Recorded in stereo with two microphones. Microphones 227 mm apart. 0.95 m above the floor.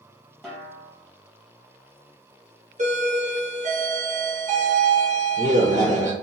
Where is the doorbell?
35° right (ahead or behind), 0.9 m.